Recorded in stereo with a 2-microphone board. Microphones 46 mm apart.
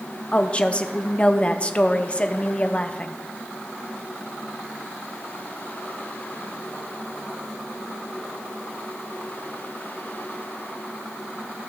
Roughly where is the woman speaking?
Left.